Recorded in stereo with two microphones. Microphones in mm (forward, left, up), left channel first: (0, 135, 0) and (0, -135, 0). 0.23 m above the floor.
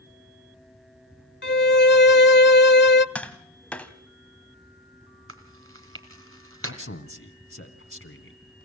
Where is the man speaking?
50° left (ahead or behind), 1.8 m.